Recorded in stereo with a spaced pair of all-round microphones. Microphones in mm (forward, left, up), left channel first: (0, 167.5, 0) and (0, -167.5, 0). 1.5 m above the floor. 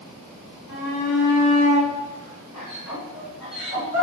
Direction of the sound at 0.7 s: 60° left (ahead or behind).